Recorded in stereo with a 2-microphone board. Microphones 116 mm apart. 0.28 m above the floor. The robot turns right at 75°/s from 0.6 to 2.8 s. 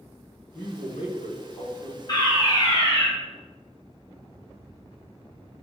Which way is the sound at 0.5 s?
30° left.